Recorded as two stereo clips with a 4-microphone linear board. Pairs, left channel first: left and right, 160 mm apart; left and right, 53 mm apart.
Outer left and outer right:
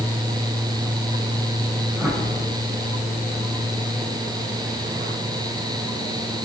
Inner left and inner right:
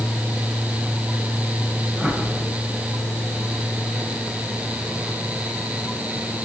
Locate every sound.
2.0 s a whoosh: 10° right (ahead or behind), 5 m